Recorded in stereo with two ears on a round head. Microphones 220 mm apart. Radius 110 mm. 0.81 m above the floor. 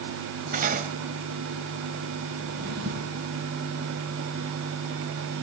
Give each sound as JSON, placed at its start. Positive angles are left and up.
{"t": 0.5, "sound": "cutlery clinking", "side_deg": -35, "distance_m": 2.0}
{"t": 2.4, "sound": "a drawer", "side_deg": -45, "distance_m": 7.5}